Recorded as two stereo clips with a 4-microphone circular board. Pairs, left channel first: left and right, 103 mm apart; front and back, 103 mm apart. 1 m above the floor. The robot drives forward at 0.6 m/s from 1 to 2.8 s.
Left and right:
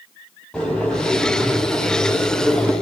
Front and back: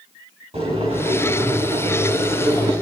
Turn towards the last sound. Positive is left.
turn(degrees=170)